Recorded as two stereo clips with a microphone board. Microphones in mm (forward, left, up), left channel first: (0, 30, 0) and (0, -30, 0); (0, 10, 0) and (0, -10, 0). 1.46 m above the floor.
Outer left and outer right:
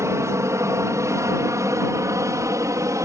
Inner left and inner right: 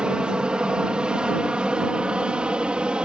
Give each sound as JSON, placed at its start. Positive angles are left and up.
{"t": 0.0, "sound": "an aircraft", "side_deg": -55}